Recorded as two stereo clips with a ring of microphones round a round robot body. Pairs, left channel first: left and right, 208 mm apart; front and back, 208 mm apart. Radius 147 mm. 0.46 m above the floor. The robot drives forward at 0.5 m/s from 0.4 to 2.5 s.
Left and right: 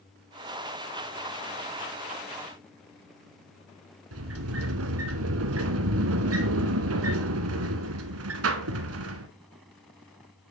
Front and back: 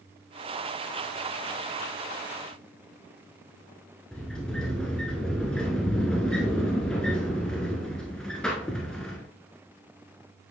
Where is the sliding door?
90° right, 1.0 m.